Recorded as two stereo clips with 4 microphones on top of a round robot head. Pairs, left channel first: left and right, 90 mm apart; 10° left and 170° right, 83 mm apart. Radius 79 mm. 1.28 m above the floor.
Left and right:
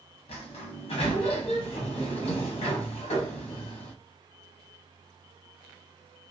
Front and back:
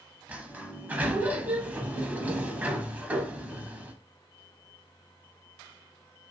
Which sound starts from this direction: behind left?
A sliding door, at 0.3 s.